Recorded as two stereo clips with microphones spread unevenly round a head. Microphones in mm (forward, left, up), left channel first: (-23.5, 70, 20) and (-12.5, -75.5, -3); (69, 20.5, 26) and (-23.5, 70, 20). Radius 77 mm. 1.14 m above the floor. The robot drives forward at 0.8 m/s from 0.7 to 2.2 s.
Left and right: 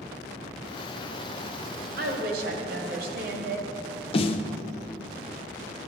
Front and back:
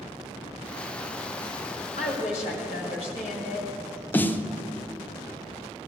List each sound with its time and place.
2.0 s a woman speaking: 60° right, 2 m; by 3.8 s 65° right, 2 m
4.1 s a snare drum: 40° left, 0.7 m